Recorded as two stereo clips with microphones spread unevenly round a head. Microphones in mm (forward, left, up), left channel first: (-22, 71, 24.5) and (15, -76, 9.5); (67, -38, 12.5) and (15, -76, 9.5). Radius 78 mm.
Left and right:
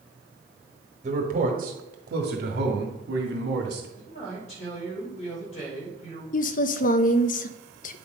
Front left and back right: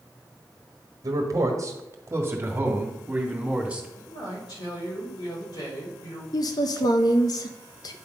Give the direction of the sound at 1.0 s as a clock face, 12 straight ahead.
4 o'clock.